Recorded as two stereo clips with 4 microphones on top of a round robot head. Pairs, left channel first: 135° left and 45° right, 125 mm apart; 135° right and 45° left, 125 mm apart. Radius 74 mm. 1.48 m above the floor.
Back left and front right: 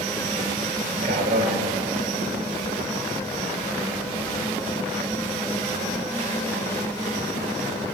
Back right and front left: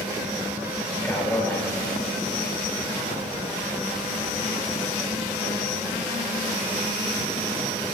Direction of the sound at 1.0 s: 60° right.